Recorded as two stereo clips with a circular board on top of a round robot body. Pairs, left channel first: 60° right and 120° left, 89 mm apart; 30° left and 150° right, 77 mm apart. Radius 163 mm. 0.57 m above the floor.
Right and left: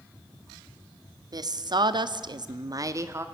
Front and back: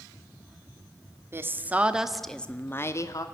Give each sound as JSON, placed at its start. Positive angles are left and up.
{"t": 1.3, "sound": "a woman speaking", "azimuth_deg": 155, "distance_m": 1.6}